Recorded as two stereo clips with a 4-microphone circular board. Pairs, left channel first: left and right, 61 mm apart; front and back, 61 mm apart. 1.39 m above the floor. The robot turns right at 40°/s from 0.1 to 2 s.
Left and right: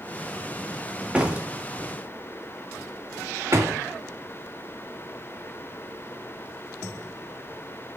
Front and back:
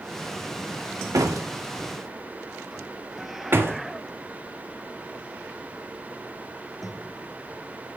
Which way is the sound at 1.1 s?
160° right.